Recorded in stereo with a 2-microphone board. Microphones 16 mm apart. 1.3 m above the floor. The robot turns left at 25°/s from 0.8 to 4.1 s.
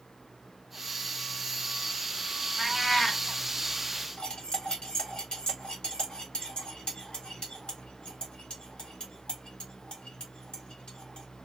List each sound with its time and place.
2.6 s a cat meowing: 10° left (ahead or behind), 1.5 m; by 3.2 s 20° left (ahead or behind), 1.5 m
4.2 s cutlery clinking: 70° left (ahead or behind), 1.2 m